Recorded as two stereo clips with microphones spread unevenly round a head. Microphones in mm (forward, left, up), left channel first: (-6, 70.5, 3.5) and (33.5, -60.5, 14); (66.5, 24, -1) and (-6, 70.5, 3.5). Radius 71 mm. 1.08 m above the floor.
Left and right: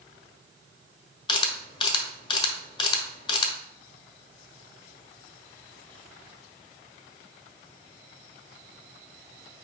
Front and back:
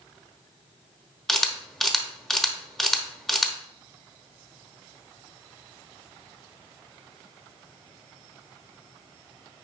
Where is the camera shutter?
50° left, 1.2 m.